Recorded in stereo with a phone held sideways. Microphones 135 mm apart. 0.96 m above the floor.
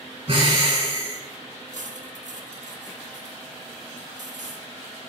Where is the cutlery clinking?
75° right (ahead or behind), 0.7 m.